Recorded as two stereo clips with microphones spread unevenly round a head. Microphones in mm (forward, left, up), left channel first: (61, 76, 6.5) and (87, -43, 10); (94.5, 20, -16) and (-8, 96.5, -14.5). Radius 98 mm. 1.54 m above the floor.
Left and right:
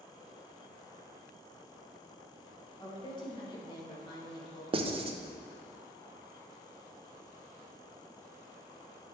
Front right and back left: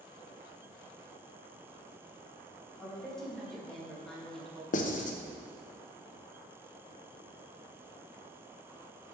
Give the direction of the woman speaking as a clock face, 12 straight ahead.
10 o'clock.